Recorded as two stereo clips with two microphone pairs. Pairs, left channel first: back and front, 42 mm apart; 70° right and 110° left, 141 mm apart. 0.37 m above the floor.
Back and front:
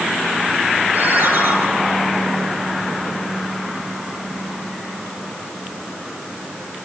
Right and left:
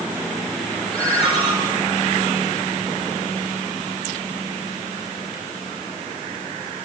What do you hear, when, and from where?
0.9 s a ringtone: 20° right, 7.5 m